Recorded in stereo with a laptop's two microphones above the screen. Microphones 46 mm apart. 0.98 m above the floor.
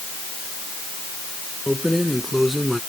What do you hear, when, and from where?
1.7 s keys jangling: 5° right (ahead or behind); by 2.8 s centre (ahead or behind)